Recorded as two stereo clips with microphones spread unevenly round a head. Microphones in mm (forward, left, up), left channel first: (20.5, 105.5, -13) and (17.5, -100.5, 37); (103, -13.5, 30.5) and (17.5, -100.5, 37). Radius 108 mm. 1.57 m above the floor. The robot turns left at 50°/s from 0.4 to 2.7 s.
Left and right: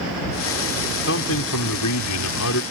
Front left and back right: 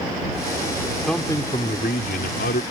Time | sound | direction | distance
1.1 | a man speaking | 135° left | ?